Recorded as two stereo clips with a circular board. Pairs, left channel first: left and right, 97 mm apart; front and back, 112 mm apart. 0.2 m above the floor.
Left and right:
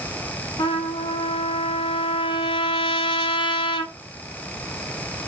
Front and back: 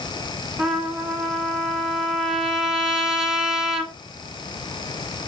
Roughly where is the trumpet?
Left.